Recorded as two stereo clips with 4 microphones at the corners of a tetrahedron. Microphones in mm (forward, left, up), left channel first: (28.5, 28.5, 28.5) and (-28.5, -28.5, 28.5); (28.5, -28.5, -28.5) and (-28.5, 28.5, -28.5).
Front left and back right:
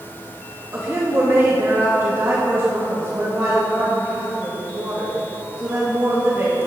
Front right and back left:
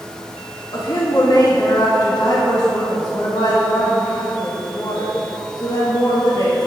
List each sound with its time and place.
0.7 s a woman speaking: 80° right, 1.7 m